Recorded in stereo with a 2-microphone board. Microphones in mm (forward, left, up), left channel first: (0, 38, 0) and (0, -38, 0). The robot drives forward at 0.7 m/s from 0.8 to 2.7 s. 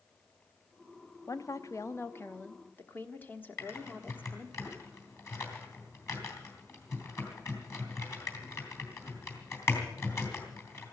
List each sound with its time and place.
1.3 s a woman speaking: 40° left (ahead or behind), 0.6 m; by 4.6 s 20° left (ahead or behind), 1.1 m
3.6 s typing on a keyboard: 40° left (ahead or behind), 3 m